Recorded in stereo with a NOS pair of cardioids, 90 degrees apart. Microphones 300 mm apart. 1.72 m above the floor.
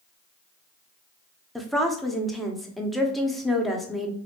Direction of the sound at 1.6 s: Straight ahead.